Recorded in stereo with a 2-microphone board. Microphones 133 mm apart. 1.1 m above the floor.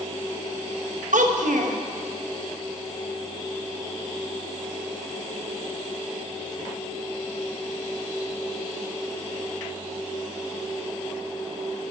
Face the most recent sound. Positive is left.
turn(degrees=-70)  # may be behind; listen again after turning